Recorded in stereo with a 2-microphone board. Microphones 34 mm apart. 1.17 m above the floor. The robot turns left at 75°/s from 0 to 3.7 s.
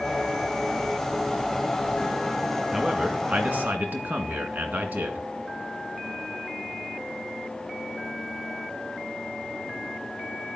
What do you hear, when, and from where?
2.7 s a man speaking: 10° right, 2.0 m; by 5.3 s 85° right, 2.0 m